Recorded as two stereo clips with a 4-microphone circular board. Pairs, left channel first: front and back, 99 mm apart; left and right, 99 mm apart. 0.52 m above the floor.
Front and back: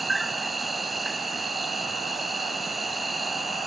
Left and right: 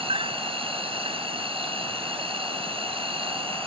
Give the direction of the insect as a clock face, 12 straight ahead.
3 o'clock.